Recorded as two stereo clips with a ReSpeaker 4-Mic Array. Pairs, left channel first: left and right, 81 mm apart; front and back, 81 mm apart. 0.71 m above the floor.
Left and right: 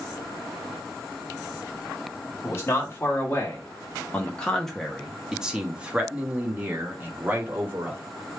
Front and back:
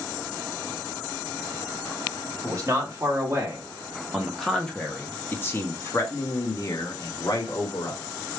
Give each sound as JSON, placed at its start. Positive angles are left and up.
{"t": 2.4, "sound": "a man speaking", "azimuth_deg": 135, "distance_m": 1.4}